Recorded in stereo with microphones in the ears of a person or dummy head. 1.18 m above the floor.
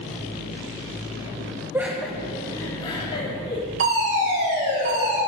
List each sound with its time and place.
1.7 s laughter: 10° right (ahead or behind), 0.6 m; by 3.6 s 30° left (ahead or behind), 1.3 m
3.8 s a fire alarm: 45° right (ahead or behind), 2 m